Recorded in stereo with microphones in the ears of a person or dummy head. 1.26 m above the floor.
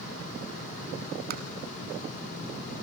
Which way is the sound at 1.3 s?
40° right (ahead or behind).